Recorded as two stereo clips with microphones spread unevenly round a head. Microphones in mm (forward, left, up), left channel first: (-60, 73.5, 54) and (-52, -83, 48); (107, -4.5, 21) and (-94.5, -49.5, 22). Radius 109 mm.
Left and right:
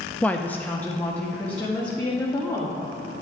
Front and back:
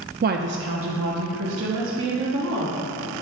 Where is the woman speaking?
175° left, 0.6 m.